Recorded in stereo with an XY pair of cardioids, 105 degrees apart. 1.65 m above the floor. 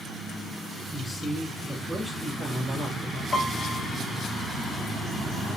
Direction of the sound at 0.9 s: 10° right.